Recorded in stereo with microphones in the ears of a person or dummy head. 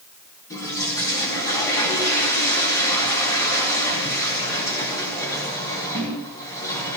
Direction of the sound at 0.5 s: 20° left (ahead or behind).